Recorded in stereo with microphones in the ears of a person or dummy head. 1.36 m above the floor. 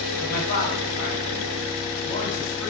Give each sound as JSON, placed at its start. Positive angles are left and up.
{"t": 0.2, "sound": "a man speaking", "side_deg": 45, "distance_m": 1.3}